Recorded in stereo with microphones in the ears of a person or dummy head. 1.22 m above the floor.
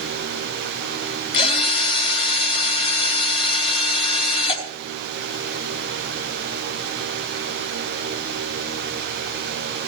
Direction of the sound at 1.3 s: 35° left (ahead or behind).